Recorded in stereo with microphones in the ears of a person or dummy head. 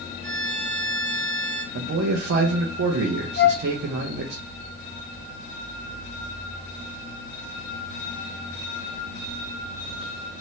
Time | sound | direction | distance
0.2 | a violin | 55° right (ahead or behind) | 1.9 m
1.7 | a man speaking | 80° right | 0.7 m
3.4 | a flute | 65° left (ahead or behind) | 1.3 m